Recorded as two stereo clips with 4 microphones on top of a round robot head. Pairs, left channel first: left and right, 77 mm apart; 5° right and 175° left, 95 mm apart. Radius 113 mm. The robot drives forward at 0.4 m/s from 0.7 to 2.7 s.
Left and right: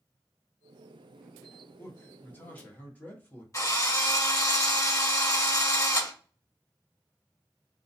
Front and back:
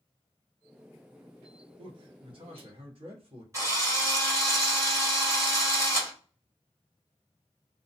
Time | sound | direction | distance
1.8 | a man speaking | 150° left | 0.8 m
3.5 | a drill | 125° left | 1.5 m